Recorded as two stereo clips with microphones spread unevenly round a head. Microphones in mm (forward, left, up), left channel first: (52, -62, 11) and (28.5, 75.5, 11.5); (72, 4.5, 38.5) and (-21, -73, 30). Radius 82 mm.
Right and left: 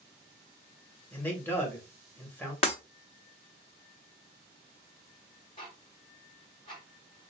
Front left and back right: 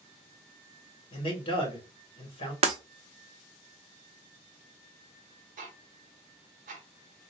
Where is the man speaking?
5° right, 1.5 m.